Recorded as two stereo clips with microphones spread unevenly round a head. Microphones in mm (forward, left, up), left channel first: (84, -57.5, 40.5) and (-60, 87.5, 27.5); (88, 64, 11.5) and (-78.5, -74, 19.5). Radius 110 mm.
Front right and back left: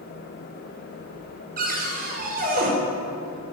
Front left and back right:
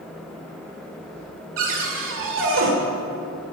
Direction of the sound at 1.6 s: 175° right.